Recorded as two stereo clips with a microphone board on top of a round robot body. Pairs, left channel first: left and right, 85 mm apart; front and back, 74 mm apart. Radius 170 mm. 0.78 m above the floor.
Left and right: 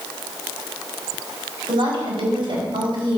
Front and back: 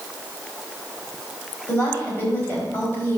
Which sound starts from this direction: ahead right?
A woman speaking, at 1.7 s.